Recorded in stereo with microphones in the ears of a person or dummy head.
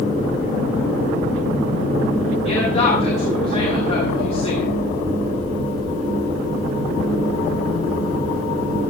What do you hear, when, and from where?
2.5 s a woman speaking: 35° left (ahead or behind), 7 m